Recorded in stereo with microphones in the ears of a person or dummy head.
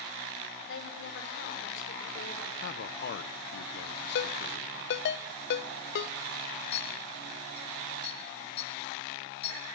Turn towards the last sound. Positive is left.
turn(degrees=35)  # may be behind; listen again after turning